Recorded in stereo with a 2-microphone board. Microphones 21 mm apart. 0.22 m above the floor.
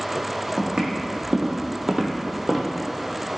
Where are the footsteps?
70° right (ahead or behind), 0.8 m; by 2.7 s 10° right (ahead or behind), 0.6 m.